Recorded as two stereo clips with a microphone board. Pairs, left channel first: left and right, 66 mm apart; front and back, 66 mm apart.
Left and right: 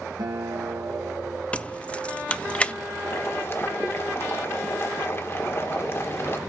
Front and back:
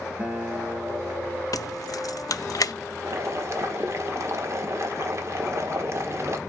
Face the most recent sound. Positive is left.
turn(degrees=140)